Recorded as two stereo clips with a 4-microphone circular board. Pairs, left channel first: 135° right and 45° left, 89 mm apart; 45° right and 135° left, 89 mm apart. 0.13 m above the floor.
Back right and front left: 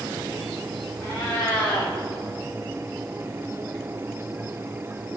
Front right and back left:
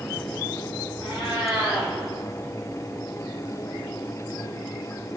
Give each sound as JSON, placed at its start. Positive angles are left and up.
{"t": 1.0, "sound": "a cat meowing", "azimuth_deg": -70, "distance_m": 5.5}